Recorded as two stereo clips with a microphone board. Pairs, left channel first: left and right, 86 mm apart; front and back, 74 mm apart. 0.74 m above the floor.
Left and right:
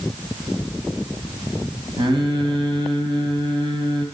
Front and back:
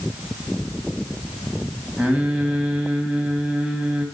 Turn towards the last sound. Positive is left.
turn(degrees=-105)